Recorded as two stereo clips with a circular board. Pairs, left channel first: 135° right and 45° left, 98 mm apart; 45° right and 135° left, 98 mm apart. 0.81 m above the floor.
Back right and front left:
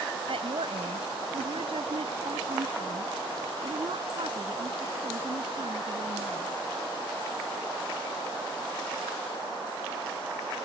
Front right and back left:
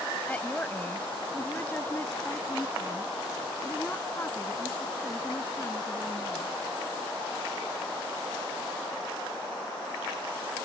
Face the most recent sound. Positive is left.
turn(degrees=20)